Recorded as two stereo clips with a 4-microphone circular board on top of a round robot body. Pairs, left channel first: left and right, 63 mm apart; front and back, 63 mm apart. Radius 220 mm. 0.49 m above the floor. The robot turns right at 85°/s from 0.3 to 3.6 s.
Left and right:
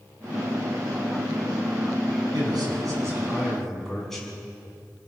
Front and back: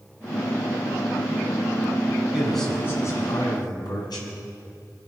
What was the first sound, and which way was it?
A man speaking, 105° right.